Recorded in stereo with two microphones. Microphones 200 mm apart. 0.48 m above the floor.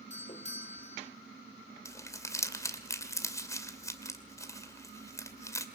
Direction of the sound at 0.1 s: 35° left (ahead or behind).